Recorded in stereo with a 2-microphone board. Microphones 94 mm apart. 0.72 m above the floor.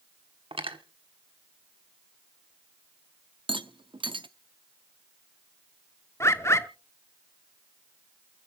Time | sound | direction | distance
0.5 | cutlery clinking | 80° right | 1.2 m
3.5 | a rattle | 65° right (ahead or behind) | 0.6 m
6.2 | a bird | 30° left (ahead or behind) | 0.8 m